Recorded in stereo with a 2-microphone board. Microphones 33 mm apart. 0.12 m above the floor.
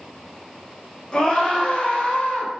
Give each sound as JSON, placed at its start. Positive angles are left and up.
{"t": 1.1, "sound": "a scream", "side_deg": 30, "distance_m": 1.8}